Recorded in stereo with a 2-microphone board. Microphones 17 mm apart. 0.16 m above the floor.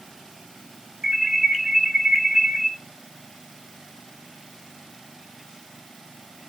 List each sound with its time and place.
1.0 s an alarm: 25° right (ahead or behind), 2.5 m